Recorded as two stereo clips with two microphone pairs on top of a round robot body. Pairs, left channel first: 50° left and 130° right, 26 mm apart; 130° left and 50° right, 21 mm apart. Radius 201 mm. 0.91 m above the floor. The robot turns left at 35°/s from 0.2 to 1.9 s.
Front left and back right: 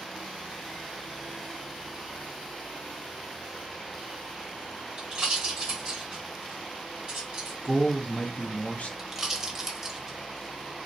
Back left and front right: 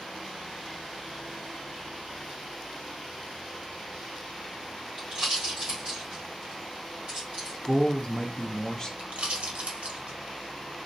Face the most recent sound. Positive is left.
turn(degrees=-60)